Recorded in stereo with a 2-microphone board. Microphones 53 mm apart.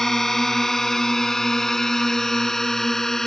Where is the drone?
5° left (ahead or behind); by 3.3 s 10° left (ahead or behind).